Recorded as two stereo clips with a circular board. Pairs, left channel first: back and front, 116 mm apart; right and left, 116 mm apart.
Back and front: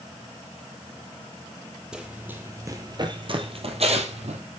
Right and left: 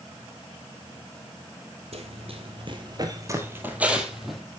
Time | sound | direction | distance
1.9 | running footsteps | 80° left | 1.7 m